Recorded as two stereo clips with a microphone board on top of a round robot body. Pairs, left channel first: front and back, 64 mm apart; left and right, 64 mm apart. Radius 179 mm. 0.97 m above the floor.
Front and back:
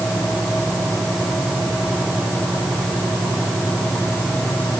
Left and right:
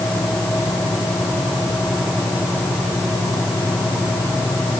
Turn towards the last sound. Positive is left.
No sound to turn to.